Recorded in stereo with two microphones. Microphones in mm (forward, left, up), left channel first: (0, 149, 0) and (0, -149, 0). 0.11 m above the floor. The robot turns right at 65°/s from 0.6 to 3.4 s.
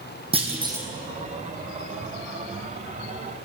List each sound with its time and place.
0.3 s a clunk: 20° right (ahead or behind), 1.7 m; by 0.9 s centre (ahead or behind), 1.7 m